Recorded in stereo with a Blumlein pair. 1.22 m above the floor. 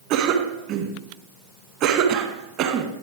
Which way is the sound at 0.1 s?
40° right.